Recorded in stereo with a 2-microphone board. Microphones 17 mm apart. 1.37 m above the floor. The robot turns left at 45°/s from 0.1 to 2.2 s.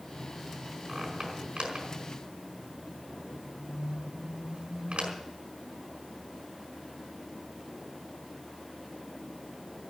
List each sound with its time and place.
0.9 s a squeak: 30° right (ahead or behind), 5 m; by 5.1 s 80° right, 5 m